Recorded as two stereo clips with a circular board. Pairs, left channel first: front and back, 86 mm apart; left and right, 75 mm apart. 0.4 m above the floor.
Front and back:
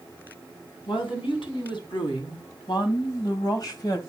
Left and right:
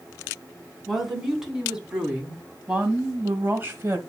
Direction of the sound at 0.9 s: Straight ahead.